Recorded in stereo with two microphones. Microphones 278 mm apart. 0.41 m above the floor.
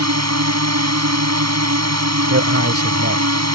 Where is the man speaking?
55° right (ahead or behind).